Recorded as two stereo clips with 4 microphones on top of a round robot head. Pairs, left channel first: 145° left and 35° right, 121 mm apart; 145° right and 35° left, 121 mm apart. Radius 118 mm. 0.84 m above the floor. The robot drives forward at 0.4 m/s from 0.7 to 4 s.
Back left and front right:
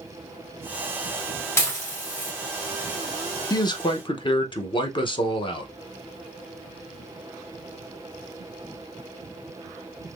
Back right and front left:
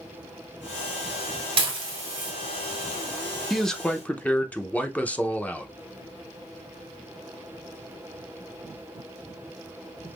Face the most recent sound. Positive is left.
turn(degrees=140)